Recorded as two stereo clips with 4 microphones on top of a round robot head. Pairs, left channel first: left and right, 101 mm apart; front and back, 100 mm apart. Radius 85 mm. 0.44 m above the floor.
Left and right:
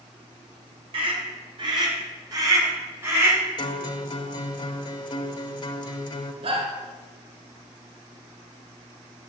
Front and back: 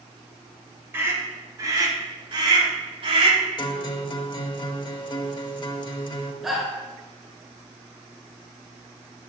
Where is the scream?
110° right, 2.5 m; by 3.4 s 165° right, 2.5 m.